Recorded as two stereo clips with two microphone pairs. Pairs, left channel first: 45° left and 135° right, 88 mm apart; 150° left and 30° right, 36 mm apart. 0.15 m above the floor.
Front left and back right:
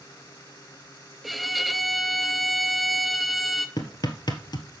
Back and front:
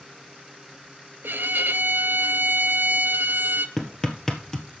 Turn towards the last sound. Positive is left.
turn(degrees=80)